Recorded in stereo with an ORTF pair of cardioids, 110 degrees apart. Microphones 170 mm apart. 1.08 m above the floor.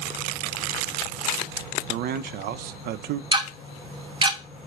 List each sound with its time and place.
1.9 s a man speaking: 65° right, 0.5 m
3.3 s ticking: 30° right, 0.9 m